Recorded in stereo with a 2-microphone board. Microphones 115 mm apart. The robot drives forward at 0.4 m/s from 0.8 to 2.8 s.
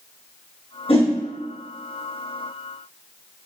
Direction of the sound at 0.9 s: 55° left (ahead or behind).